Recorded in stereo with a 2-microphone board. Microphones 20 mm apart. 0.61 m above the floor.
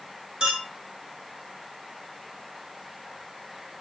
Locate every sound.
0.4 s a clink: 50° right (ahead or behind), 2 m